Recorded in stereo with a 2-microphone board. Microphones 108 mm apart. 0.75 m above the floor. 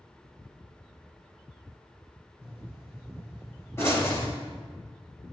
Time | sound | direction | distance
2.4 | a pop | 25° left (ahead or behind) | 5 m